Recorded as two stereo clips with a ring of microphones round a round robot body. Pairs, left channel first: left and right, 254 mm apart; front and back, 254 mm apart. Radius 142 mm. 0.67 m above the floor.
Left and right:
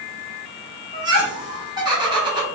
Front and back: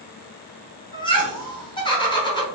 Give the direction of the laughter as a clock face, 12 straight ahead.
1 o'clock.